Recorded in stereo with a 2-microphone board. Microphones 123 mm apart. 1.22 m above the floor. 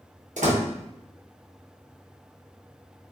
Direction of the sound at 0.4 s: 85° right.